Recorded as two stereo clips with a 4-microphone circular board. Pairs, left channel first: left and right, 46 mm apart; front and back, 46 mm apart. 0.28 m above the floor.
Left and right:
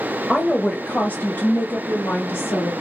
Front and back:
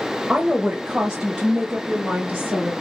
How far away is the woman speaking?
About 1.0 m.